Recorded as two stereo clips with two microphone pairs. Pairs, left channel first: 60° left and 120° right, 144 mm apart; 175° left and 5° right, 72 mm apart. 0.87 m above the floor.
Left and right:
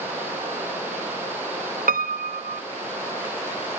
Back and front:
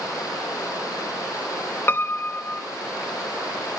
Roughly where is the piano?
Behind right.